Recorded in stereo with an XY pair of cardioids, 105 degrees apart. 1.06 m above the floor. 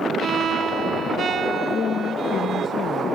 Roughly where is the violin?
Ahead right.